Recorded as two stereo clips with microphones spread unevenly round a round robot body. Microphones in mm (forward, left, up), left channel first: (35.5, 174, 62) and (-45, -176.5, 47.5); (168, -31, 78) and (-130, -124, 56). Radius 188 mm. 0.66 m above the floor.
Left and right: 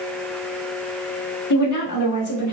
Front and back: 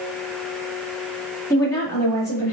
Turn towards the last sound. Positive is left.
turn(degrees=100)